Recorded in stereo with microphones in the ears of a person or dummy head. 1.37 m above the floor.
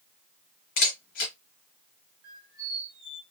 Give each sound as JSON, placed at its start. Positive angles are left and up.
{"t": 0.8, "sound": "a camera shutter", "side_deg": 45, "distance_m": 0.9}
{"t": 2.2, "sound": "a squeak", "side_deg": -75, "distance_m": 1.3}